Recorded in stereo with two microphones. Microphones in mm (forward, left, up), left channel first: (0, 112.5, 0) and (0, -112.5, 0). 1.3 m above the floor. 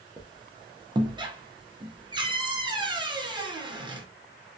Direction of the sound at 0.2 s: 20° right (ahead or behind).